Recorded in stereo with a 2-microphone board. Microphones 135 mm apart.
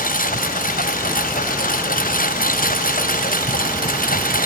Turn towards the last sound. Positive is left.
turn(degrees=80)